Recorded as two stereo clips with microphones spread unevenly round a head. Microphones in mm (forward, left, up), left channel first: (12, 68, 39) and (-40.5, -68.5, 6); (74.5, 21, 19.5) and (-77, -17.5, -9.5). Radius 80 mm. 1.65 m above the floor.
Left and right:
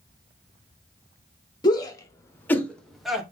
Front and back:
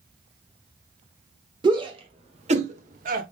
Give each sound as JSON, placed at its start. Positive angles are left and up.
{"t": 1.6, "sound": "a shout", "azimuth_deg": 130, "distance_m": 1.7}